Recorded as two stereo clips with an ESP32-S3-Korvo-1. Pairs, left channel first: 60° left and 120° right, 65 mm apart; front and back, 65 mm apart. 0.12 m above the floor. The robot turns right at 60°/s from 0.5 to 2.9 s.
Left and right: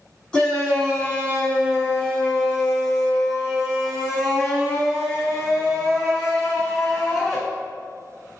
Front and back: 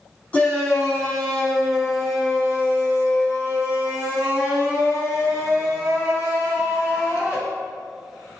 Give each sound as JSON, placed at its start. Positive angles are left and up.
{"t": 0.3, "sound": "a shout", "azimuth_deg": 10, "distance_m": 1.1}